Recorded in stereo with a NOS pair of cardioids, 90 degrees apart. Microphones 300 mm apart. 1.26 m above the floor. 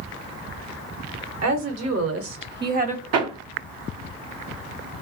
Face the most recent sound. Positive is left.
turn(degrees=-60)